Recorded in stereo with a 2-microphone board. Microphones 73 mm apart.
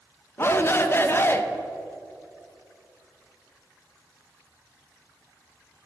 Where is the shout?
35° left (ahead or behind), 0.7 m.